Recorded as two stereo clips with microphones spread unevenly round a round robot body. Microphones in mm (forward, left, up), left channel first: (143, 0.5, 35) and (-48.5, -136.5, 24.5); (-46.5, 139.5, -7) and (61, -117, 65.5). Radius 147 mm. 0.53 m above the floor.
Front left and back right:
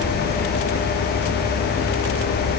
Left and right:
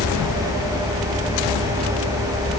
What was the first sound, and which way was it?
Only background noise.